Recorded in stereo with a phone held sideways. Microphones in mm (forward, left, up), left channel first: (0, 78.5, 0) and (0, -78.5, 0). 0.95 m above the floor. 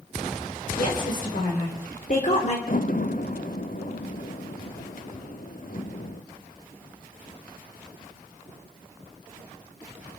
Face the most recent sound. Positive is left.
turn(degrees=60)  # may be behind; listen again after turning